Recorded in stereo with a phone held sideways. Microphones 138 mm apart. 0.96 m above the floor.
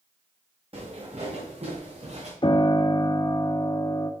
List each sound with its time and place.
0.7 s footsteps: 45° right (ahead or behind), 4.5 m; by 2.3 s 50° right (ahead or behind), 4 m
2.4 s a piano: 35° left (ahead or behind), 0.7 m